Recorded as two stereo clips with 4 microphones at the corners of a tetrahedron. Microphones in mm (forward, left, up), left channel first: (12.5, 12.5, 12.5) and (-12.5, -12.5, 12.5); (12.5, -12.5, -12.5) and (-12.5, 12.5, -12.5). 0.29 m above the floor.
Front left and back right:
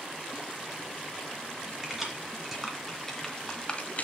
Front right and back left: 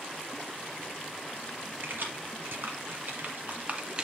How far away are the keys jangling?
About 3 m.